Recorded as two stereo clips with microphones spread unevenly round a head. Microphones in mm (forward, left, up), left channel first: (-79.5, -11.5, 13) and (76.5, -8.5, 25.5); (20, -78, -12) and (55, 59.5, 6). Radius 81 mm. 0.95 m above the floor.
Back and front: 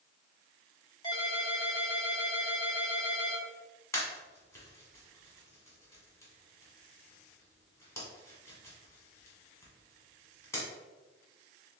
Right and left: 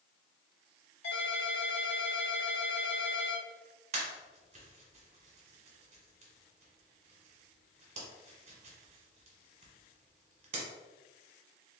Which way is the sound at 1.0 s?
115° right.